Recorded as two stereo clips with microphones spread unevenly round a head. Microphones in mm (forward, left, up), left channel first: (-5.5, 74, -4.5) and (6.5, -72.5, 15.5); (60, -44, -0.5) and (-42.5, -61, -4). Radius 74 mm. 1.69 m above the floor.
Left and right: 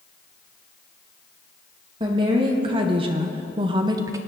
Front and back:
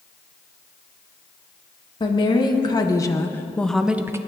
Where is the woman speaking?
30° right, 1.6 m; by 4.2 s 125° right, 0.6 m.